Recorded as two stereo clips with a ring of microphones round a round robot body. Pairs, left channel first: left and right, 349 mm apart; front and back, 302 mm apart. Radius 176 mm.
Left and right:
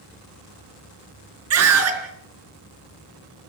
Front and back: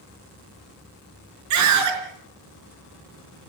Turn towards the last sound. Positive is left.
turn(degrees=-140)